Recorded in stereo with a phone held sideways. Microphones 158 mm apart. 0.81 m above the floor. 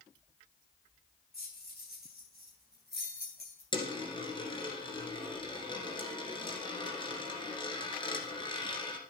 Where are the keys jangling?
80° left, 3.5 m.